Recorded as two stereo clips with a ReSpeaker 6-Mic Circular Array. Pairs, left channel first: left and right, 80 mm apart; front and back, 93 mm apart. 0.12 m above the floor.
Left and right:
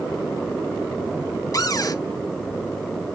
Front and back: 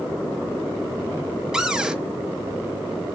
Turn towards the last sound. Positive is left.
turn(degrees=100)